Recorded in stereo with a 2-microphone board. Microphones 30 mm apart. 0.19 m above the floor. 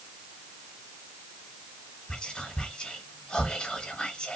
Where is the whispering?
35° left (ahead or behind), 1.4 m.